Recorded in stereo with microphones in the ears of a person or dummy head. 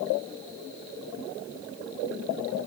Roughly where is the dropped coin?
No dropped coin in this recording.